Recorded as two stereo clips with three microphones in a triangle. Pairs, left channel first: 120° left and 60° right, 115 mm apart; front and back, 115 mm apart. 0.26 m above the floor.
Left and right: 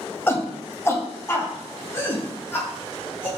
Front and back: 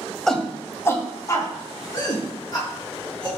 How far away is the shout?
About 0.9 m.